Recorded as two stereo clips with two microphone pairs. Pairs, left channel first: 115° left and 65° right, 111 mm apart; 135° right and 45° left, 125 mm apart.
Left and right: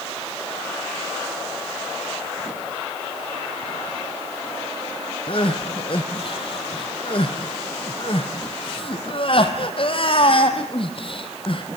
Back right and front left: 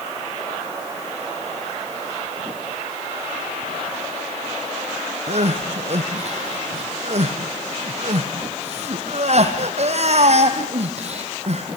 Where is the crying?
75° left, 2 m.